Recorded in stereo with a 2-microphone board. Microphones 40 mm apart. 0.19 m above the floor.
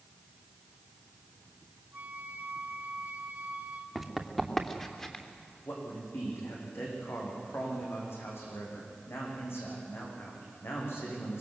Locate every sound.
1.9 s a flute: 45° right (ahead or behind), 1.3 m
4.0 s running footsteps: centre (ahead or behind), 2.5 m; by 5.2 s 15° left (ahead or behind), 3.5 m
5.6 s a man speaking: 80° left, 9.5 m